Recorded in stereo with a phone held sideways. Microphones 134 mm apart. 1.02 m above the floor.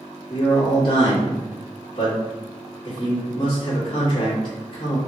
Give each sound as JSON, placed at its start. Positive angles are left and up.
{"t": 0.3, "sound": "a man speaking", "side_deg": 35, "distance_m": 1.8}